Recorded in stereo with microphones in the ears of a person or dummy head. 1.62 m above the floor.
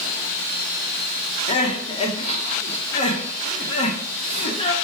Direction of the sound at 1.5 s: 35° left (ahead or behind).